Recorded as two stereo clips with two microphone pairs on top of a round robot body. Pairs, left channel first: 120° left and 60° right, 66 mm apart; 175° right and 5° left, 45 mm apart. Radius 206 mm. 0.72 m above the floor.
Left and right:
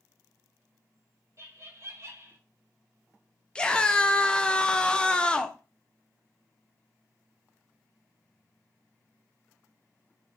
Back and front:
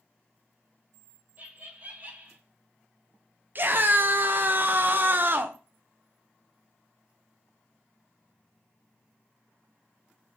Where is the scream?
40° left, 0.8 m.